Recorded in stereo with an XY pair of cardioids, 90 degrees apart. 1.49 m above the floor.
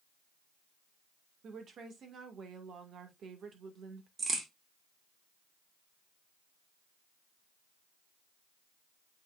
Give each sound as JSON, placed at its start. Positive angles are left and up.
{"t": 1.4, "sound": "a woman speaking", "azimuth_deg": -65, "distance_m": 1.9}
{"t": 4.2, "sound": "a crack", "azimuth_deg": -45, "distance_m": 2.5}